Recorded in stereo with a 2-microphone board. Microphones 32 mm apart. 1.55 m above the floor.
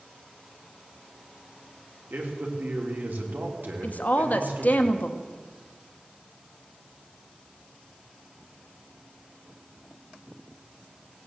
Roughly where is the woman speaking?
Left.